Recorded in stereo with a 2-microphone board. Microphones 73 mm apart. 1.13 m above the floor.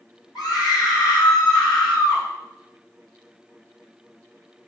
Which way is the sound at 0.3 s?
65° left (ahead or behind).